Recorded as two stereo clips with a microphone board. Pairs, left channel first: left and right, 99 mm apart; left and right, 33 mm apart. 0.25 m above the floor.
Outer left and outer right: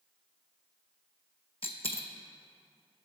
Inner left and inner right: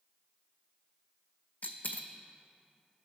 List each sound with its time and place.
1.6 s a dropped coin: 70° left (ahead or behind), 0.6 m